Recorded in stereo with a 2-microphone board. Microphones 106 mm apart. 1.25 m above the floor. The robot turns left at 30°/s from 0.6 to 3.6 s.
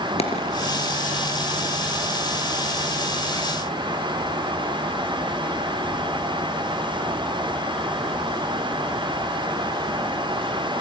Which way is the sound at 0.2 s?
70° left (ahead or behind).